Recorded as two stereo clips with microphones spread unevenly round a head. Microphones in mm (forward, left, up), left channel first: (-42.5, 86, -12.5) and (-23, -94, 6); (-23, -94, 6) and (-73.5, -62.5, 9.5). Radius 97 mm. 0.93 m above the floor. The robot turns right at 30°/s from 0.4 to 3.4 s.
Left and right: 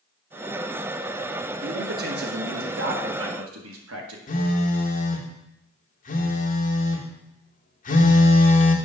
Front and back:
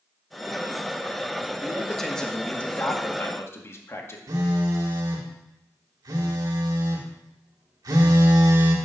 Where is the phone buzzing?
140° left, 1.5 m.